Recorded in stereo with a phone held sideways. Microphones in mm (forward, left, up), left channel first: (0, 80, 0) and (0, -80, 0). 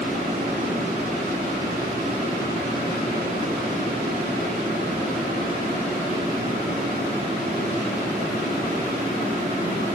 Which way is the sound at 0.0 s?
70° right (ahead or behind).